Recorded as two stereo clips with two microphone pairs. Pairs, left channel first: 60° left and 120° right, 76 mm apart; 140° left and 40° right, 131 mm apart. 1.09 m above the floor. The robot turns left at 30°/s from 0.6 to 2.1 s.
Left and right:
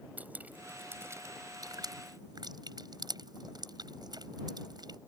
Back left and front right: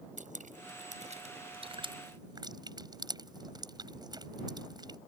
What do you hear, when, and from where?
0.2 s dripping: 55° right; by 5.0 s 100° right